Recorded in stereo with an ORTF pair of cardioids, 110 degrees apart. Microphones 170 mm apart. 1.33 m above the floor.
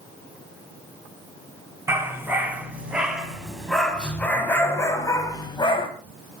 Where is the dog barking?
15° right, 5.5 m; by 5.9 s 30° left, 4 m.